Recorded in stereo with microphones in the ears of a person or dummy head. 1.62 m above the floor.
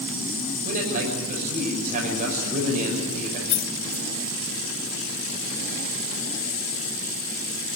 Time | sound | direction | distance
0.7 | a man speaking | 45° right (ahead or behind) | 6.5 m
3.5 | keys jangling | 55° left (ahead or behind) | 1.2 m